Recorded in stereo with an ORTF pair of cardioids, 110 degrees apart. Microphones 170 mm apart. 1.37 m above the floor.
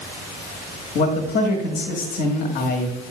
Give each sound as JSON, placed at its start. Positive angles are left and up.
{"t": 0.9, "sound": "a man speaking", "azimuth_deg": 65, "distance_m": 1.4}